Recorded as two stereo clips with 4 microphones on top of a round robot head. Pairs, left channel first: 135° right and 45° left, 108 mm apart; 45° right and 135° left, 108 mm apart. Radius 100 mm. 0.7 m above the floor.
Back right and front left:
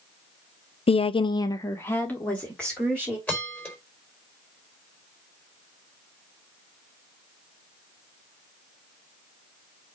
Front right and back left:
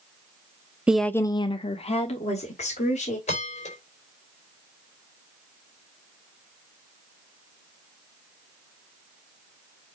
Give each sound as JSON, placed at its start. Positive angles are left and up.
{"t": 0.9, "sound": "a woman speaking", "azimuth_deg": -145, "distance_m": 0.7}
{"t": 3.3, "sound": "a bell", "azimuth_deg": -60, "distance_m": 4.0}